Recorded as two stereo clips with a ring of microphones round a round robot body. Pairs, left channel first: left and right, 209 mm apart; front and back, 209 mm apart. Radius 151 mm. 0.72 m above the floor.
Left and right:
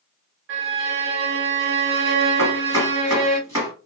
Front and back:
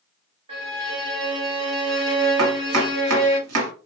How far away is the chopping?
About 1.0 m.